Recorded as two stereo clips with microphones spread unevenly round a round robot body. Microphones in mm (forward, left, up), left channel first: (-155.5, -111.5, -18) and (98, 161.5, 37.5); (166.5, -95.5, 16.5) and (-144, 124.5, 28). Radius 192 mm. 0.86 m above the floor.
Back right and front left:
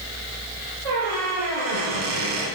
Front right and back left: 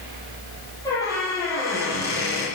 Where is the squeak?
45° left, 9.5 m.